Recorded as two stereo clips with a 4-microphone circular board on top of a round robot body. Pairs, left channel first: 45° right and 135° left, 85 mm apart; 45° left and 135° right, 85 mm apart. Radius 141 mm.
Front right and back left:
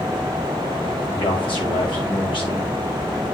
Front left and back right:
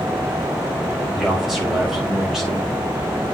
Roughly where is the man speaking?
Ahead right.